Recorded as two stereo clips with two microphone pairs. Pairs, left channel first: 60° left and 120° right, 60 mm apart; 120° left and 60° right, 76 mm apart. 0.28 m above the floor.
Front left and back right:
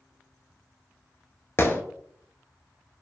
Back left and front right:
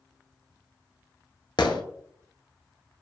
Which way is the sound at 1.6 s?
105° left.